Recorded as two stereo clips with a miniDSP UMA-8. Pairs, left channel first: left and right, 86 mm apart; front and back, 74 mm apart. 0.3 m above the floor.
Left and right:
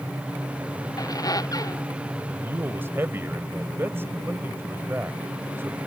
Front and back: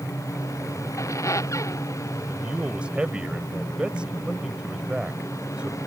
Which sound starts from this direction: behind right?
A man speaking, at 2.3 s.